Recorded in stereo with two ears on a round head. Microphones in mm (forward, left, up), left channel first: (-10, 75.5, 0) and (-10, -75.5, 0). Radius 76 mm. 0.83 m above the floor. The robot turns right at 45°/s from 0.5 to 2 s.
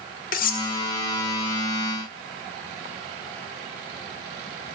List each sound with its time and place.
0.3 s cutlery clinking: 55° left (ahead or behind), 1.2 m; by 0.7 s 60° left (ahead or behind), 1.2 m